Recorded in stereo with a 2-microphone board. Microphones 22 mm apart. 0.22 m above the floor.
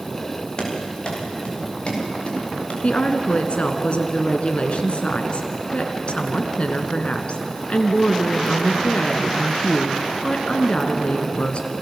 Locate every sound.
0.6 s running footsteps: 35° left (ahead or behind), 8.5 m; by 2.7 s 50° left (ahead or behind), 8 m
2.8 s a woman speaking: 55° left (ahead or behind), 2 m